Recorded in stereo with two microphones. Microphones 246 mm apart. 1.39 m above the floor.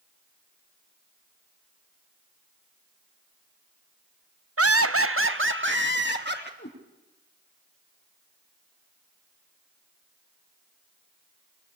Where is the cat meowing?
45° left (ahead or behind), 6 m.